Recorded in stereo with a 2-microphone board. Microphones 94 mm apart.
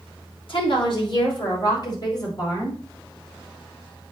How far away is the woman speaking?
About 3.5 m.